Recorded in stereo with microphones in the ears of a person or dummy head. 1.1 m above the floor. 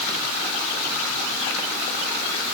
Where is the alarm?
No alarm in this recording.